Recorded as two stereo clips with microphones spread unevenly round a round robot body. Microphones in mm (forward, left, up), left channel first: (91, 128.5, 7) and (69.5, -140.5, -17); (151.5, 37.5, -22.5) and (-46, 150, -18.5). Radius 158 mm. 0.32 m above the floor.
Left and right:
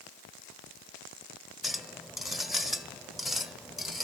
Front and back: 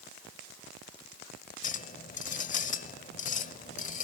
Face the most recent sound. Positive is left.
turn(degrees=-15)